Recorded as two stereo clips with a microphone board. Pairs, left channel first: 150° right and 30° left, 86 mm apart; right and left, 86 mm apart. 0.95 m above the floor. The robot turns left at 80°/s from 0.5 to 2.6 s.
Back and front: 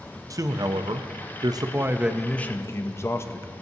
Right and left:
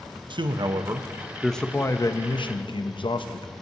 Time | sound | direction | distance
0.3 | a man speaking | 75° left | 0.5 m